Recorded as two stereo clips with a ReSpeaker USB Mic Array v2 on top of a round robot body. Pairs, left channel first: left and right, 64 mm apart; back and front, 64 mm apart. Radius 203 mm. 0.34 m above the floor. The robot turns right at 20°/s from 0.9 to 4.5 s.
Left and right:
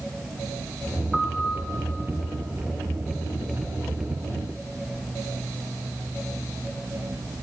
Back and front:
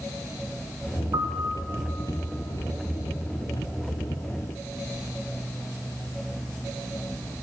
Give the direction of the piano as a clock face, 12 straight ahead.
12 o'clock.